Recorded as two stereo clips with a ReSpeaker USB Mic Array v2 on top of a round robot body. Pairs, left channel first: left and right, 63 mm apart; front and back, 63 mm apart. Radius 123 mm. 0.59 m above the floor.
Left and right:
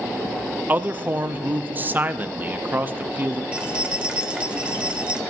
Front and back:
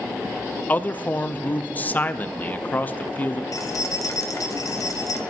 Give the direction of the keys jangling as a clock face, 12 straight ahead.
1 o'clock.